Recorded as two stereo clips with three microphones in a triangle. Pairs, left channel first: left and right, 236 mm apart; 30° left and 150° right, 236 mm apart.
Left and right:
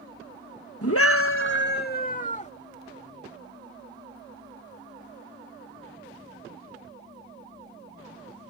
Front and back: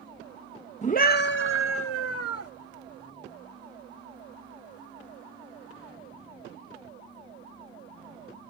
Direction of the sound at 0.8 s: 90° left.